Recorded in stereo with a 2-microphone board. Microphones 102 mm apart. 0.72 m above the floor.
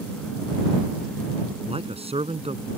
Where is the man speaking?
75° right (ahead or behind).